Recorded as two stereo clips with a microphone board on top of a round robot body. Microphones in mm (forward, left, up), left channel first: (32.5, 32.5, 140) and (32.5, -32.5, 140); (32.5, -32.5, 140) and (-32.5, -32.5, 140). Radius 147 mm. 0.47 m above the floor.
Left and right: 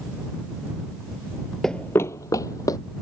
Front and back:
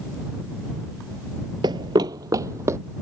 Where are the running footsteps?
175° left; by 2.8 s 130° left.